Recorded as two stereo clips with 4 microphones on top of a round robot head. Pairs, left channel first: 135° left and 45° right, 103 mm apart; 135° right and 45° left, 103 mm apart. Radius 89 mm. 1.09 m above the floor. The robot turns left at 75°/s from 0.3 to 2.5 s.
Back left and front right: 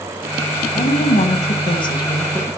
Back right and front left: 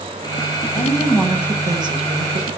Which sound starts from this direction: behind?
A woman speaking, at 0.7 s.